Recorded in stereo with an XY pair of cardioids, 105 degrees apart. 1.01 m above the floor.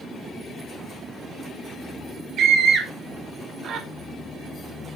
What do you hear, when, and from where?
2.4 s a scream: 70° right, 2.5 m